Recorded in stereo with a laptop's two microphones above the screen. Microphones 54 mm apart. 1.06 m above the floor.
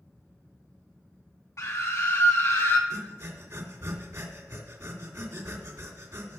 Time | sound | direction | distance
1.6 | a scream | 65° left (ahead or behind) | 1.9 m
2.9 | breathing | 65° right (ahead or behind) | 1.9 m